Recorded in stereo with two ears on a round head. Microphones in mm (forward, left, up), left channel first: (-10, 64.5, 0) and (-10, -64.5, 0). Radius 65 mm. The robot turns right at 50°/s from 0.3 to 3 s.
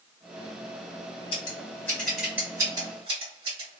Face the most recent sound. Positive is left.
turn(degrees=-40)  # may be behind; listen again after turning